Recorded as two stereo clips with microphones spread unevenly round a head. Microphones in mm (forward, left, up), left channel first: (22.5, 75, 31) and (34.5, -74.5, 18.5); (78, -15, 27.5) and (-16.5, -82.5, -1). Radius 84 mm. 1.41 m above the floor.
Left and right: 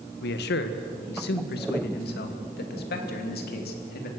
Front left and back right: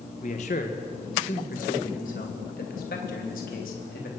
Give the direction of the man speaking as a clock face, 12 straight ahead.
9 o'clock.